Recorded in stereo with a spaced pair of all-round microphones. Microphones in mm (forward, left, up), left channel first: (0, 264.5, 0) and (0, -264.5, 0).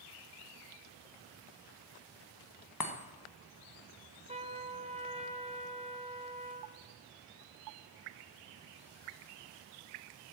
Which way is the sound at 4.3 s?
10° right (ahead or behind).